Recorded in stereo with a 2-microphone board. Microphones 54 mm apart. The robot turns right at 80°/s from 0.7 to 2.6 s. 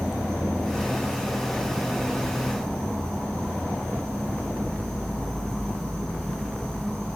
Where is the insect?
10° left, 1.5 m; by 7.2 s 165° left, 1.5 m.